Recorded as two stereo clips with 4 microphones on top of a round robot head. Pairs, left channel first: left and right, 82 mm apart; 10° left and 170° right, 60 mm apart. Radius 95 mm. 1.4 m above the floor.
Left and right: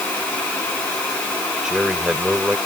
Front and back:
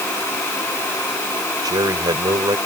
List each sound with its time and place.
1.6 s a man speaking: 175° right